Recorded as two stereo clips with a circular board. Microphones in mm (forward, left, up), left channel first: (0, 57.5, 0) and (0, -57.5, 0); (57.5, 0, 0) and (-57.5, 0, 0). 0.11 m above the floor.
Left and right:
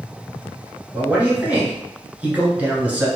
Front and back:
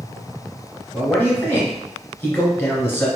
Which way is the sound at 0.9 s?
35° right.